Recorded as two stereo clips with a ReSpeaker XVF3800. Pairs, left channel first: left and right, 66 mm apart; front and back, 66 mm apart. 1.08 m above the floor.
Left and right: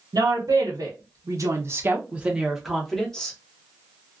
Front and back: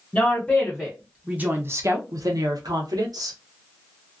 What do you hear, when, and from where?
0.1 s a woman speaking: 75° right, 1.1 m; by 3.4 s 165° left, 1.1 m